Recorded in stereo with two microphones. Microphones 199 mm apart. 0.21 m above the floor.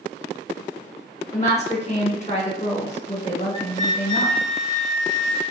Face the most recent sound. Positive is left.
turn(degrees=30)  # may be behind; listen again after turning